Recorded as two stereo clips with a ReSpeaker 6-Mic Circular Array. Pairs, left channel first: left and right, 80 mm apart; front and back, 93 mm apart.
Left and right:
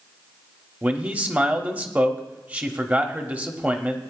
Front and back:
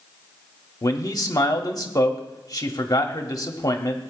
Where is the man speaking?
30° right, 1.2 m.